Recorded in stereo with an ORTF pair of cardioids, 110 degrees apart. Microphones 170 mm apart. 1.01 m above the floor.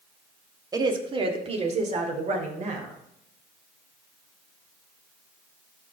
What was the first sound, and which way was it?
A woman speaking, 20° right.